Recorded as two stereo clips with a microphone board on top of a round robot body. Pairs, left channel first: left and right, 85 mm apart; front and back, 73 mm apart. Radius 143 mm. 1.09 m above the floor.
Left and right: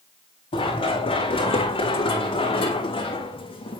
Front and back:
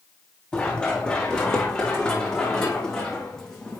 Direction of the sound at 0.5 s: 80° left.